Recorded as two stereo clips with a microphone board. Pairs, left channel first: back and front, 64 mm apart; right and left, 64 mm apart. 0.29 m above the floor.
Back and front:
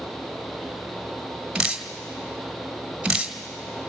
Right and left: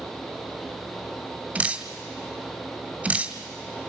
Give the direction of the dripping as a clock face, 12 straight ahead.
10 o'clock.